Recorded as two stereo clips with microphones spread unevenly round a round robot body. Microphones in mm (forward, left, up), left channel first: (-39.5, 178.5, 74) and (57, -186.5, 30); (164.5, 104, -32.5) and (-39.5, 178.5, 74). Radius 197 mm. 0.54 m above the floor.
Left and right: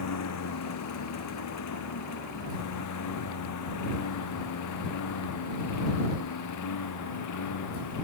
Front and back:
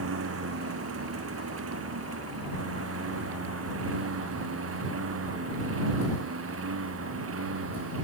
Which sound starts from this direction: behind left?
A lawn mower, at 0.0 s.